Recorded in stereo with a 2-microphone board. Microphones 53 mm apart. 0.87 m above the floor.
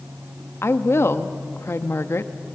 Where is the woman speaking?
55° left (ahead or behind), 1.1 m.